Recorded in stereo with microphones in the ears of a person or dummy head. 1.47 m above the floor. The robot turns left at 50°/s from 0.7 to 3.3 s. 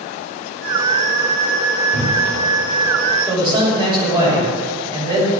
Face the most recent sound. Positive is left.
turn(degrees=-30)  # may be behind; listen again after turning